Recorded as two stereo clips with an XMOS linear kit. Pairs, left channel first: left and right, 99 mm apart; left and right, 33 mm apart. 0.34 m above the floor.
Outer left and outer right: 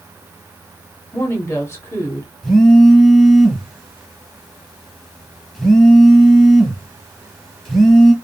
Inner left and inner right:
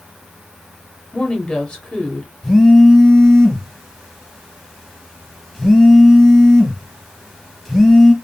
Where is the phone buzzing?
5° left (ahead or behind), 0.8 m.